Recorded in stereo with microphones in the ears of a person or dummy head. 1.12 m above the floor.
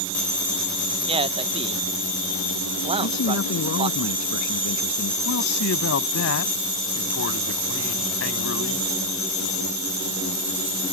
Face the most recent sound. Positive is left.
turn(degrees=70)  # may be behind; listen again after turning